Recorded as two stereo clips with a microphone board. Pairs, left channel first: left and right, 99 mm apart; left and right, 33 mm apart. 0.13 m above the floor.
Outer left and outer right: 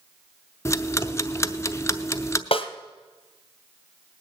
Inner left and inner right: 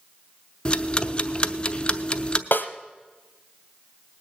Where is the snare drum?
75° left (ahead or behind), 1.0 m.